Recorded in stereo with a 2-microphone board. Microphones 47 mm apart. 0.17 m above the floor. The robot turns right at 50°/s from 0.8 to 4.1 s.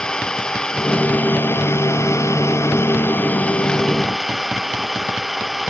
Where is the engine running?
15° left; by 5.7 s straight behind.